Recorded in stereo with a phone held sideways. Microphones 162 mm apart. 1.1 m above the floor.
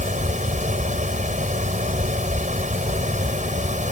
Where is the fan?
50° right (ahead or behind).